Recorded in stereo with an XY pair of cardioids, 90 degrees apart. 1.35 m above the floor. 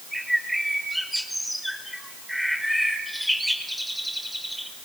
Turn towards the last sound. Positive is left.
turn(degrees=0)